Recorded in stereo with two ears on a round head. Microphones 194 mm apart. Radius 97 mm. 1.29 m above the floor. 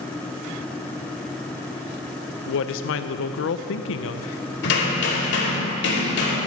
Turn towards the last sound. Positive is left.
turn(degrees=55)  # may be behind; listen again after turning